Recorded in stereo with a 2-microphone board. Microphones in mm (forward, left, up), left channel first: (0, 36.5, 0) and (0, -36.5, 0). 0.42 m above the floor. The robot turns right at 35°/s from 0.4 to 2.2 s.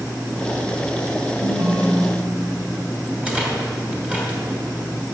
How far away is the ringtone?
About 2.5 m.